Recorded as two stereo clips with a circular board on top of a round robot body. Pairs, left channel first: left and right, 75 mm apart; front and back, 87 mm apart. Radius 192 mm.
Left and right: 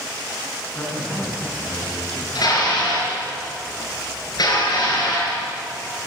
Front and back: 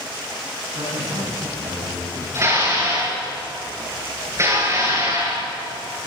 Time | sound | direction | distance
0.7 | a man speaking | 155° left | 9 m
2.4 | dishes clattering | 125° left | 7.5 m